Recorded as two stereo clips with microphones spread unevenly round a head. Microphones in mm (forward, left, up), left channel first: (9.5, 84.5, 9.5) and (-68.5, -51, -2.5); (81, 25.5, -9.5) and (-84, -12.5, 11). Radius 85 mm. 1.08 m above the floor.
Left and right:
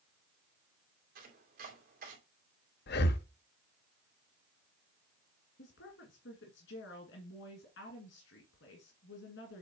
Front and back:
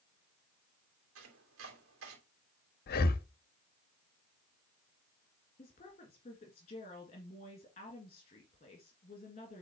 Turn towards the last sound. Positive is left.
turn(degrees=65)